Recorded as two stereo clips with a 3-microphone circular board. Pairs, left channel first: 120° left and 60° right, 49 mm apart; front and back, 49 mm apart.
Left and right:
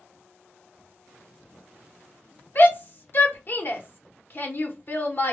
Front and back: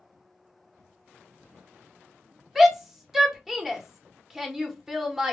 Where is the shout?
100° left, 0.8 m.